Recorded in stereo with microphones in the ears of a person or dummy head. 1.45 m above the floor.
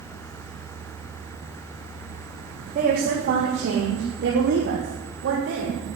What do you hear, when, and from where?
2.8 s a woman speaking: 55° right (ahead or behind), 3 m; by 5.9 s 80° right, 4 m